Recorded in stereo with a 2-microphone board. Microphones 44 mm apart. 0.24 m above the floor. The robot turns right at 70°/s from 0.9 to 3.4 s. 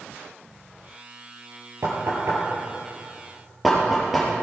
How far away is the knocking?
About 3.5 m.